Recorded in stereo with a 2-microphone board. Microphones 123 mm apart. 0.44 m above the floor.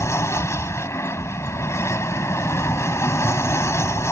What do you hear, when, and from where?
0.0 s an aircraft: 20° left (ahead or behind)